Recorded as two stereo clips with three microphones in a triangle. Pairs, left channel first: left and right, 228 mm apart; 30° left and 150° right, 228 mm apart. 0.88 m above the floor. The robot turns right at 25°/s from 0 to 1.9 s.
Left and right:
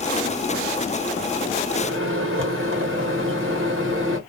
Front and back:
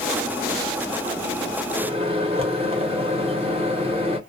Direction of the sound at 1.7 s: 95° right.